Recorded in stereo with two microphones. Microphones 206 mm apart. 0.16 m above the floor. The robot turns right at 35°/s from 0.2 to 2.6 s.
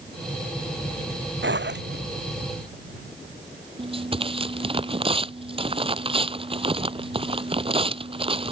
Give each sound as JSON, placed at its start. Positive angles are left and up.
{"t": 1.4, "sound": "a zipper", "side_deg": -75}
{"t": 3.8, "sound": "tearing paper", "side_deg": -30}